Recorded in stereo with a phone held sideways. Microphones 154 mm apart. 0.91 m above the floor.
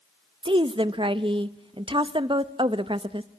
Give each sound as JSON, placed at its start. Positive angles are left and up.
{"t": 0.4, "sound": "a woman speaking", "side_deg": -35, "distance_m": 0.8}